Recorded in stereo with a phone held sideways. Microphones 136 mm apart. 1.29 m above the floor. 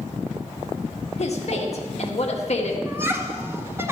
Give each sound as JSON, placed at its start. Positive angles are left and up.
{"t": 1.2, "sound": "a woman speaking", "side_deg": 50, "distance_m": 1.6}
{"t": 2.9, "sound": "laughter", "side_deg": -15, "distance_m": 1.8}